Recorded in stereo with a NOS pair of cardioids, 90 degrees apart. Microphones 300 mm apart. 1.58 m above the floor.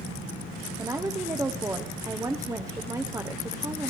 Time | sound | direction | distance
0.8 | a woman speaking | 10° right | 0.6 m